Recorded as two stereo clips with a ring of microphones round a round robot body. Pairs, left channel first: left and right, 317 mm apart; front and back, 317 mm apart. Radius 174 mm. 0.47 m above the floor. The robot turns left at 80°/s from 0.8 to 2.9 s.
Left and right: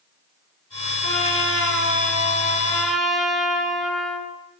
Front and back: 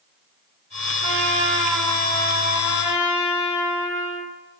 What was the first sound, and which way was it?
A trumpet, 150° left.